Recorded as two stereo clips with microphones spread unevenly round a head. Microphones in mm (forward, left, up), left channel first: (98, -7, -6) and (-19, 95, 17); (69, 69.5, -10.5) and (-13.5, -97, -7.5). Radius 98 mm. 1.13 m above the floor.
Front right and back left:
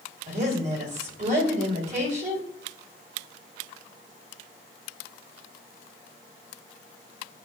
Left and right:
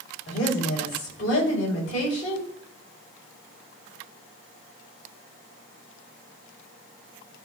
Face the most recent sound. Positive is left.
turn(degrees=100)